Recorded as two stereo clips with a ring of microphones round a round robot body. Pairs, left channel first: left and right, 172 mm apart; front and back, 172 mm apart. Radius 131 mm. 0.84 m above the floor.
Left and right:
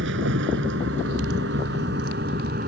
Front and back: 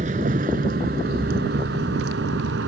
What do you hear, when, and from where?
0.0 s a vehicle: 120° right; by 2.7 s 145° right